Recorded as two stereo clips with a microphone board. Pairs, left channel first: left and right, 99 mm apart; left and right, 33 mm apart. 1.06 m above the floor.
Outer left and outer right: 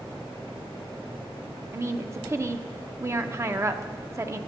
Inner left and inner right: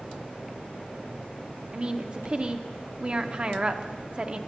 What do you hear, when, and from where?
1.7 s a woman speaking: 30° right (ahead or behind), 0.5 m